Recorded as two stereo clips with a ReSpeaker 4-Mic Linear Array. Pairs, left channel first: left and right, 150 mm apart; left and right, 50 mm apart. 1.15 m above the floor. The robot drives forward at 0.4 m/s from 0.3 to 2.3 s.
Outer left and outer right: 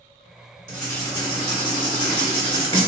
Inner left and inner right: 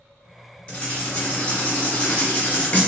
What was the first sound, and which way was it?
Writing, 25° left (ahead or behind).